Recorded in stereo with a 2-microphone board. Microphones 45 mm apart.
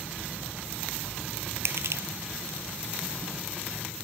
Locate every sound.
1.6 s crushing: 70° right (ahead or behind)